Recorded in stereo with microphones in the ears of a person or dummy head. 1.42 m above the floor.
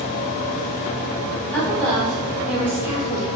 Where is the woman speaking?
15° left (ahead or behind), 2.0 m; by 3.3 s 25° right (ahead or behind), 1.6 m.